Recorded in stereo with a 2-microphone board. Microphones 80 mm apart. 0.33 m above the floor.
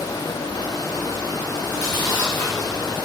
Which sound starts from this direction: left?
Chewing, at 1.6 s.